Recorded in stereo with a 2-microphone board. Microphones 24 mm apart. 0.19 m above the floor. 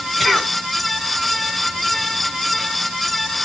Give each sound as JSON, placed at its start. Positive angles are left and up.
{"t": 0.2, "sound": "a cough", "side_deg": 0, "distance_m": 2.0}